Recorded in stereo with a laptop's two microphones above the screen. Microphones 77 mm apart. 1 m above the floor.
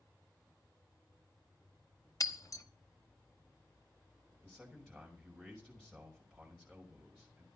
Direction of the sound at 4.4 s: 10° left (ahead or behind).